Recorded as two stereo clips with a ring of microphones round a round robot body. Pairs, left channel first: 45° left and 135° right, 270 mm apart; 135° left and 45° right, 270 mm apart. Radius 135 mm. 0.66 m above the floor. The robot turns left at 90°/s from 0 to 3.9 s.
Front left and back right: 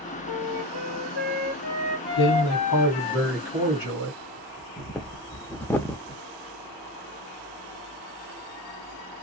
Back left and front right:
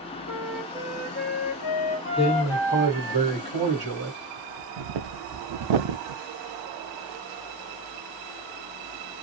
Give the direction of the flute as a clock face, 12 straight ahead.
3 o'clock.